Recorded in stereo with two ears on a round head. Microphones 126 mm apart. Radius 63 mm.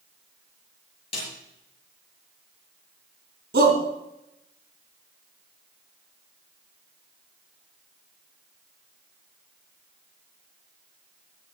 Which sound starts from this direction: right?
A shout, at 3.5 s.